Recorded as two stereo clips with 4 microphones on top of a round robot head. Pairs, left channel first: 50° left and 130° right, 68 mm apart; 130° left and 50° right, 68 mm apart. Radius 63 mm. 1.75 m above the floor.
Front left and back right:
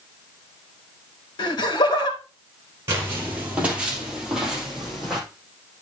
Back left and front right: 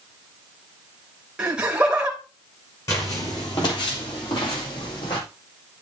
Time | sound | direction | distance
1.4 | laughter | 30° left | 2.5 m
2.9 | footsteps | straight behind | 2.5 m